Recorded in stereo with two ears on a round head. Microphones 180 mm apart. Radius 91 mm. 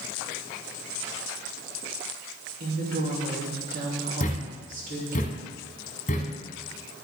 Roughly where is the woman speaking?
Right.